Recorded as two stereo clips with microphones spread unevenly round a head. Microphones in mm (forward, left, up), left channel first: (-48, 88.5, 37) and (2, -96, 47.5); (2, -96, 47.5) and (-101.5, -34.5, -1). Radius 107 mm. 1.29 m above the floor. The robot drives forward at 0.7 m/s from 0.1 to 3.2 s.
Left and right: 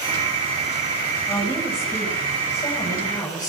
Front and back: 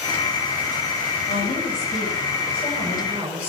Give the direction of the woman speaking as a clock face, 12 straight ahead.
11 o'clock.